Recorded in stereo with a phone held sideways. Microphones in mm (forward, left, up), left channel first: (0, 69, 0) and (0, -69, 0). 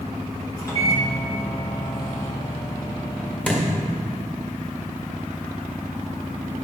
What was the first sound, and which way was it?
A microwave, 25° left (ahead or behind).